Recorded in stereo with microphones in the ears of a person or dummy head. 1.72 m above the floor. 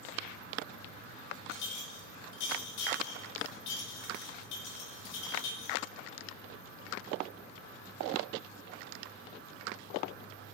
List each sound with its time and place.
1.5 s a clink: 65° left (ahead or behind), 1.4 m